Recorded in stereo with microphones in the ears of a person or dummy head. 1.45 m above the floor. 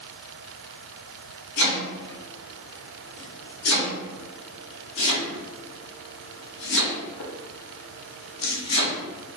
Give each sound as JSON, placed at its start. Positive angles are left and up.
{"t": 1.6, "sound": "chopping", "side_deg": 65, "distance_m": 1.6}